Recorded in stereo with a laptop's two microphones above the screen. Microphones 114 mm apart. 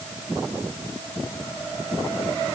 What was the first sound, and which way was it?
Only background noise.